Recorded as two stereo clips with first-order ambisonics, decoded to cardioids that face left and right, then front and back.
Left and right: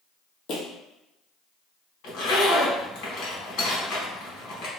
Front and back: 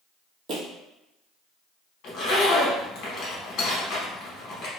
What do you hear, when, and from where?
0.5 s footsteps: 130° left, 1.1 m
2.0 s a zipper: 50° left, 1.3 m